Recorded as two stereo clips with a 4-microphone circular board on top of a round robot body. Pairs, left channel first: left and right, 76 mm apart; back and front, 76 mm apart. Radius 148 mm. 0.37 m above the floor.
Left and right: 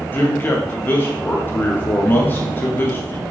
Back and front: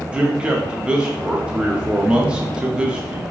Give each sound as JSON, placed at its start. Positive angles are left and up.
{"t": 0.1, "sound": "a man speaking", "azimuth_deg": 60, "distance_m": 1.2}